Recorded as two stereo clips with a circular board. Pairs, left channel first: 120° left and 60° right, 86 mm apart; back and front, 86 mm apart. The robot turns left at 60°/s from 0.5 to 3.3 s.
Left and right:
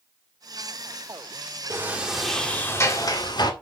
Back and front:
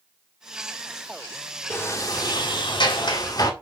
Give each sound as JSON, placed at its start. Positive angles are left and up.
{"t": 1.7, "sound": "a sliding door", "azimuth_deg": -120, "distance_m": 1.9}